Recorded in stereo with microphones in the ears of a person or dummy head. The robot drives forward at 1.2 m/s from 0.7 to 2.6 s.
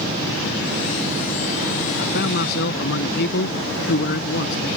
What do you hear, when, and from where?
2.0 s a man speaking: 60° left (ahead or behind)